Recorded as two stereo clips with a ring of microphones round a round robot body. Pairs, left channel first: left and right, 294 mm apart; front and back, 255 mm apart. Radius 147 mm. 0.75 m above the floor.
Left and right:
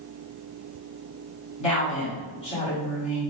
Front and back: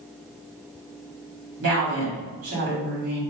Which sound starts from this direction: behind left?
A woman speaking, at 1.6 s.